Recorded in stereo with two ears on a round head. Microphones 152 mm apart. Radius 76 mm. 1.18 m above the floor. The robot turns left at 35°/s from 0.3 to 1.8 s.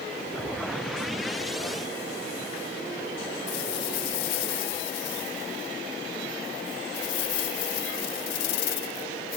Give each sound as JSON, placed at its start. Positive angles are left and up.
{"t": 3.5, "sound": "a rattle", "side_deg": 80}